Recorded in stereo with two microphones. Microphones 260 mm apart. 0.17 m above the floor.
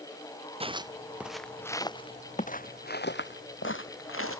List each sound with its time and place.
0.6 s footsteps: 25° right (ahead or behind); by 4.4 s 60° left (ahead or behind)